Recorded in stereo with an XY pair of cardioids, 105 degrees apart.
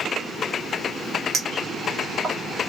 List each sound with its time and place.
1.3 s a clink: 50° right, 1.4 m